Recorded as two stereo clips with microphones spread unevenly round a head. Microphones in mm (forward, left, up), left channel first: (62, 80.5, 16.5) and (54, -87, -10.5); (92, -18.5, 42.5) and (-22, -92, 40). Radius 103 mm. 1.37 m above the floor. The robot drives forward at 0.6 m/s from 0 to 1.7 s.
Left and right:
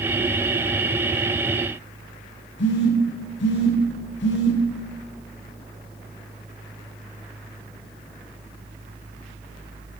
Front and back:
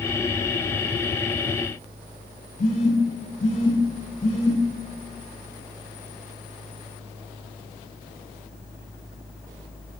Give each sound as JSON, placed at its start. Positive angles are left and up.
{"t": 2.6, "sound": "a phone buzzing", "azimuth_deg": 85, "distance_m": 0.9}